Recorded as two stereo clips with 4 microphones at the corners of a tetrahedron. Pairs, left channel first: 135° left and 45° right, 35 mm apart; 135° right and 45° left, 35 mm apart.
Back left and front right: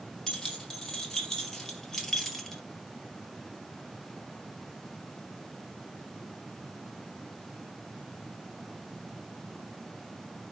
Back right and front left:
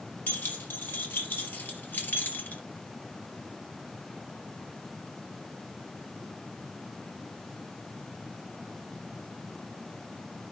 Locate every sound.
0.3 s keys jangling: 150° right, 3.5 m; by 2.6 s 140° right, 1.7 m